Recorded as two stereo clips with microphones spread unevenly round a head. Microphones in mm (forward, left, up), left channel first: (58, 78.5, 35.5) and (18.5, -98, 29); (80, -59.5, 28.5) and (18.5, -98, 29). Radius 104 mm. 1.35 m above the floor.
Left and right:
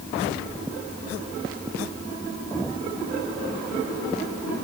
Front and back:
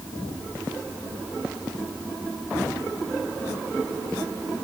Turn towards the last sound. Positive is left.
No sound to turn to.